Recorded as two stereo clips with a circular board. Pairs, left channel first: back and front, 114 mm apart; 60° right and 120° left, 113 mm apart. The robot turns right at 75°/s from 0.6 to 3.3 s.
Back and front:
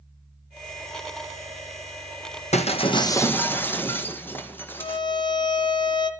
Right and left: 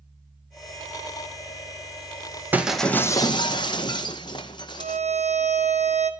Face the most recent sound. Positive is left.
turn(degrees=130)